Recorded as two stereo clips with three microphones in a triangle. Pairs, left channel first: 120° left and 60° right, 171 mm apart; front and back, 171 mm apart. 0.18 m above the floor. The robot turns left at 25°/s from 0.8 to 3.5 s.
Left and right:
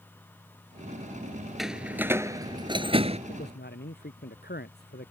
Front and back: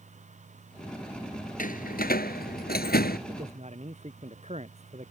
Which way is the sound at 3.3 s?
135° left.